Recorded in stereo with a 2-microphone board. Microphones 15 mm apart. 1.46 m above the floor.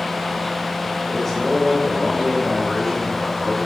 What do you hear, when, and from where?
1.1 s a man speaking: 10° left (ahead or behind), 3 m